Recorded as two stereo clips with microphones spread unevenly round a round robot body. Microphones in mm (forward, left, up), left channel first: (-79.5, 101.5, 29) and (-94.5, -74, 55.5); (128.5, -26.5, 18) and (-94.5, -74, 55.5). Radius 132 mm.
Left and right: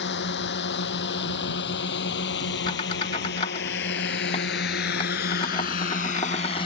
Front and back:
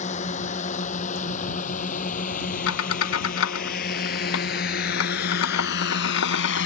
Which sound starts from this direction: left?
A drone, at 0.0 s.